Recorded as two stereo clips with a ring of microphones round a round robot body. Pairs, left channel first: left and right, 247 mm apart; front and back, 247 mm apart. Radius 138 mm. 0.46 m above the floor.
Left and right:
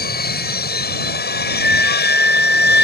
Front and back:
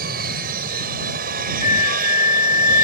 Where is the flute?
55° left.